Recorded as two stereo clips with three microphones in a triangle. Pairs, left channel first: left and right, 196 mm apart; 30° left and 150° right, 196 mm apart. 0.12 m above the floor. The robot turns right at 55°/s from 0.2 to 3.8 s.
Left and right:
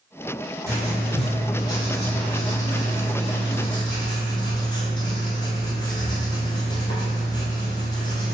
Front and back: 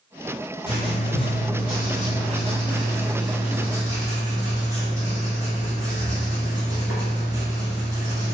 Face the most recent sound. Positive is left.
turn(degrees=145)